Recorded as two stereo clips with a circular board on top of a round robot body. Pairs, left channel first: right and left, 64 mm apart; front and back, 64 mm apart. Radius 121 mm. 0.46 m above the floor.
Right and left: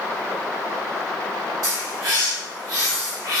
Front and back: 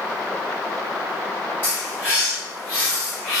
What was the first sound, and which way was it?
A bird, 60° left.